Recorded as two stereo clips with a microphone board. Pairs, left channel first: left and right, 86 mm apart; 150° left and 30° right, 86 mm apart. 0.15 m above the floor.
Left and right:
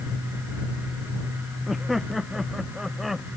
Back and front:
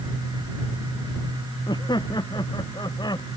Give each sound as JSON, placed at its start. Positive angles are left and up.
{"t": 1.7, "sound": "laughter", "azimuth_deg": 180}